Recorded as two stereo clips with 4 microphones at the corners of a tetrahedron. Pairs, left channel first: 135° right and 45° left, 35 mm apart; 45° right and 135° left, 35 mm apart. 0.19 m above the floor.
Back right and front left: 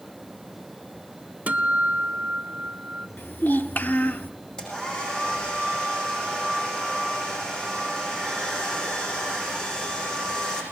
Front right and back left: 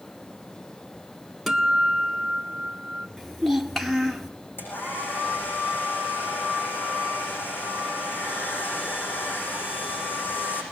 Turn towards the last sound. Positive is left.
turn(degrees=-65)